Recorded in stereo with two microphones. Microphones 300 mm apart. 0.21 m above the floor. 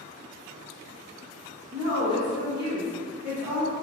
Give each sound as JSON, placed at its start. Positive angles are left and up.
{"t": 1.7, "sound": "a woman speaking", "side_deg": -15, "distance_m": 2.0}